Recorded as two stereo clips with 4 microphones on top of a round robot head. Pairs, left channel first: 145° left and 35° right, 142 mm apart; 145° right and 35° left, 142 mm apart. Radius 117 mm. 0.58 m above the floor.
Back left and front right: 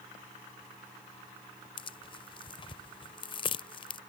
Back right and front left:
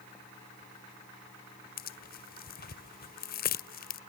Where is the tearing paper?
160° right.